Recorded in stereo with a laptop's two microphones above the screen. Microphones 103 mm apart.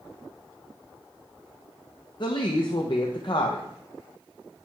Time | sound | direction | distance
2.2 | a woman speaking | 50° left (ahead or behind) | 0.5 m